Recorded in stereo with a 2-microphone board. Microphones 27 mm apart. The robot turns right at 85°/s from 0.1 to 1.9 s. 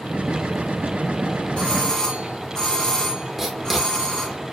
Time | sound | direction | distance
1.6 | a doorbell | 50° left (ahead or behind) | 2 m
3.4 | writing | 10° right (ahead or behind) | 1.8 m